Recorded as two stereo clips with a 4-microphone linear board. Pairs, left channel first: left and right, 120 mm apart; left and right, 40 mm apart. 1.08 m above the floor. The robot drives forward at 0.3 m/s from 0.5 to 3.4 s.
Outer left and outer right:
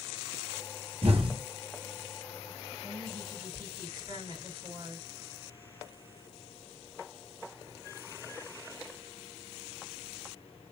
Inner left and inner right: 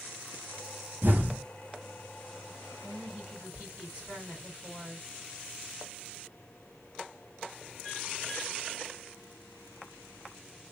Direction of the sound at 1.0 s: 55° right (ahead or behind).